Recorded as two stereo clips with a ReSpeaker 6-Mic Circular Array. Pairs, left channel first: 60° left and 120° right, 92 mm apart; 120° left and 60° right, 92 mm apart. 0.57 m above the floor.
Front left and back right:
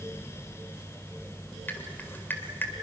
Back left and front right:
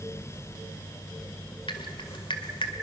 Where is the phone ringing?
No phone ringing in this recording.